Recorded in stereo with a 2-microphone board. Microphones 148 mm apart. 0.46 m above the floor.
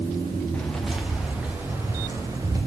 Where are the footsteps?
5° left (ahead or behind), 4 m; by 2.6 s 25° right (ahead or behind), 5.5 m.